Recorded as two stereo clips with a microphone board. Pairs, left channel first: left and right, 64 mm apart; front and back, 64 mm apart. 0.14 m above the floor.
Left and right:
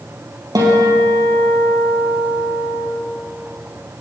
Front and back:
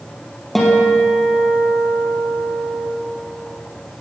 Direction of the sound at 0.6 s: 85° right.